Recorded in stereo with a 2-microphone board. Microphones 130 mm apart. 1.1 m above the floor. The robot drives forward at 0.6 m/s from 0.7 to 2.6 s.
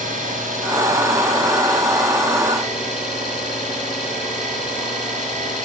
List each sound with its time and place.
0.0 s an engine running: 75° right (ahead or behind), 7 m; by 5.6 s 65° right (ahead or behind), 7.5 m